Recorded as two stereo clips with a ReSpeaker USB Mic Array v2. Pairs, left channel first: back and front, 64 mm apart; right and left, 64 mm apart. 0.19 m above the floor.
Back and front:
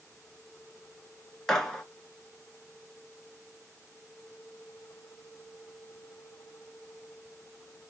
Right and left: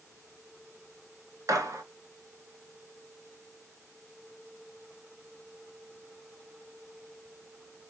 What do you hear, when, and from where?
1.5 s a gunshot: 100° left, 0.8 m